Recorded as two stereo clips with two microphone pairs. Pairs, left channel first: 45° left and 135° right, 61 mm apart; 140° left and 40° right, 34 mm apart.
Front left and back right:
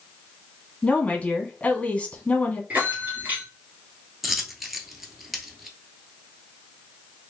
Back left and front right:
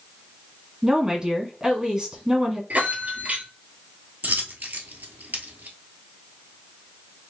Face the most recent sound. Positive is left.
turn(degrees=-45)